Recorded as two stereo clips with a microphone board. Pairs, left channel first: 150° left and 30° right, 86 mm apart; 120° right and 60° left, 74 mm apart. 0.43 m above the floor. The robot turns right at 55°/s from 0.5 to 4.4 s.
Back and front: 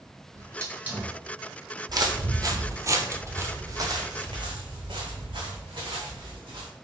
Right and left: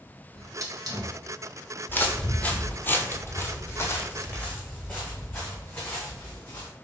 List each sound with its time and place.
0.3 s a hiss: 20° left, 1.0 m; by 1.1 s 55° left, 1.0 m
1.9 s footsteps: 65° right, 0.8 m; by 6.7 s 60° right, 2.5 m